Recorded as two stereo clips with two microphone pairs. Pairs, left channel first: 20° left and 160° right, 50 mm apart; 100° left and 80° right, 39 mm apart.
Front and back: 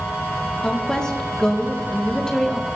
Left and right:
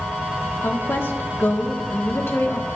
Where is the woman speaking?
95° left, 2 m.